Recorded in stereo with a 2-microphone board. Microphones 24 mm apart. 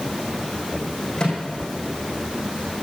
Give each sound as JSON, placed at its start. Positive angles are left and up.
{"t": 1.2, "sound": "a microwave", "side_deg": 20, "distance_m": 4.5}